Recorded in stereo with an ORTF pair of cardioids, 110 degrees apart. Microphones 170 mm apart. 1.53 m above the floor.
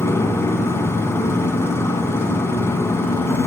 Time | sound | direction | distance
0.0 | a motorcycle | 15° left | ?